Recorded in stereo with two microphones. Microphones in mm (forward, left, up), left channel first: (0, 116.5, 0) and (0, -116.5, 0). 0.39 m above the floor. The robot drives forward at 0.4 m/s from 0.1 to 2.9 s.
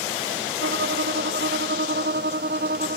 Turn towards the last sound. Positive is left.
turn(degrees=-45)  # may be behind; listen again after turning